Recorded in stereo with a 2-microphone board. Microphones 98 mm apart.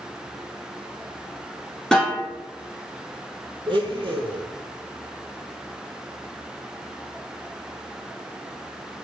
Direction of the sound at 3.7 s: 55° right (ahead or behind).